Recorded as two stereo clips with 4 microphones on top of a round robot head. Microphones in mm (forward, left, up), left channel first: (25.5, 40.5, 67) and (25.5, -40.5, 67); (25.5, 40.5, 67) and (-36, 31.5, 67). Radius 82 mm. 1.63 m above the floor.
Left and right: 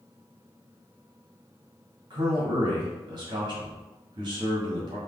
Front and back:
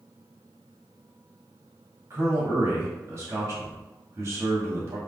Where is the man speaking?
130° right, 1.7 m.